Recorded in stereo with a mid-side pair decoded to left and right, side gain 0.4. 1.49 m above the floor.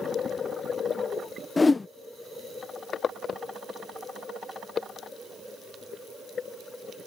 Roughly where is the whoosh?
Ahead left.